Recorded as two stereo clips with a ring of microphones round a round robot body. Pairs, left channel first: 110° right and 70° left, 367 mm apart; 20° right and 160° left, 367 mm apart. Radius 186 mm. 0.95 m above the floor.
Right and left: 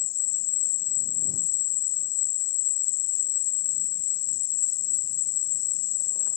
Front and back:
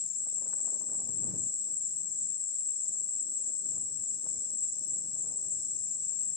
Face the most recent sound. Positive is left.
turn(degrees=-95)